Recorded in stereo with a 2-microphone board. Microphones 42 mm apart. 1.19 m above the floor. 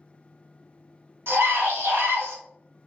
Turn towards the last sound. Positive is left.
turn(degrees=-65)  # may be behind; listen again after turning